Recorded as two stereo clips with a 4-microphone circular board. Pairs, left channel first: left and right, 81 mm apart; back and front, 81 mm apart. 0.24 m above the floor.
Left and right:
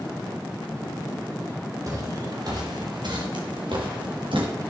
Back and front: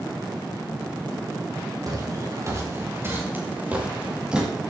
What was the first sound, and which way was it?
Footsteps, 40° right.